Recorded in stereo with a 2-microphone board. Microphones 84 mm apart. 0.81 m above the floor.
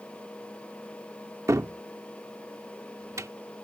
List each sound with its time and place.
1.5 s a cupboard door: 35° right (ahead or behind)